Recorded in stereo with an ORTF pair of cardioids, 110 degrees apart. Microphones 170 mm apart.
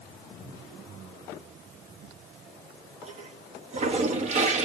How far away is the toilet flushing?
About 1.0 m.